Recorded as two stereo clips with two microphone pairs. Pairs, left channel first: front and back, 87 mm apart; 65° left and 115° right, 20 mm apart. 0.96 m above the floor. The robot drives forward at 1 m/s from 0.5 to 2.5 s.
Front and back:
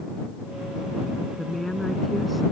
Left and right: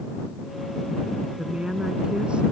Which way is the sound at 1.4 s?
85° right.